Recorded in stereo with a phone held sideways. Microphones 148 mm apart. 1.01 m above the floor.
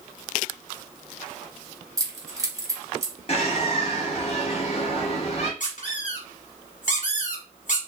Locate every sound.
2.0 s keys jangling: 20° right (ahead or behind), 0.9 m
3.3 s a bird: 45° left (ahead or behind), 1.1 m
5.6 s a squeak: 55° left (ahead or behind), 1.5 m